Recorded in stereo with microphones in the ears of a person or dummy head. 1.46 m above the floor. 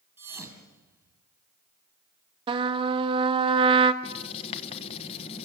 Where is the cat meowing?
I don't hear a cat meowing.